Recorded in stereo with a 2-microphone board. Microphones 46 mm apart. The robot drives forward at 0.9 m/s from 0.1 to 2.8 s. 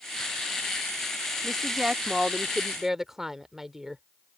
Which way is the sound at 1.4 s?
10° right (ahead or behind).